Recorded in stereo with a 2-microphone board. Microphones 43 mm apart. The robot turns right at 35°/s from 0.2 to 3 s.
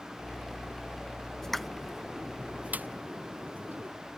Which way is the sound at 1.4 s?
10° left (ahead or behind).